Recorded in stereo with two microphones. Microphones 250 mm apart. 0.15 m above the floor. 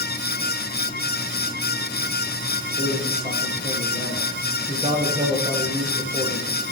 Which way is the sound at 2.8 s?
15° right (ahead or behind).